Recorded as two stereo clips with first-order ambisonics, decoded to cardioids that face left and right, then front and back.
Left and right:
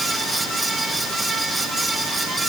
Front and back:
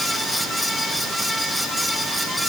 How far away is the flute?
I don't hear a flute.